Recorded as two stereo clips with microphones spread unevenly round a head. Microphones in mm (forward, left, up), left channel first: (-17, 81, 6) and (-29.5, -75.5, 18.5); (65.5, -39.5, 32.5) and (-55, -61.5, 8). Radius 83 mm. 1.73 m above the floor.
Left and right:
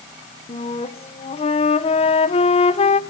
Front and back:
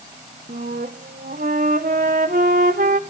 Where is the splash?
I don't hear a splash.